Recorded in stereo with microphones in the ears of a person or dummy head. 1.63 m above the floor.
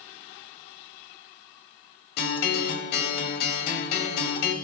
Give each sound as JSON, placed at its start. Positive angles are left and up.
{"t": 2.2, "sound": "a guitar", "side_deg": 50, "distance_m": 1.7}